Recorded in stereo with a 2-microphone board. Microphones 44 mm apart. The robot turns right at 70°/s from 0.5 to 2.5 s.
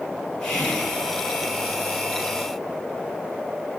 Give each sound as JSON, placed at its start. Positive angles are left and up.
{"t": 0.4, "sound": "whispering", "side_deg": 25, "distance_m": 3.0}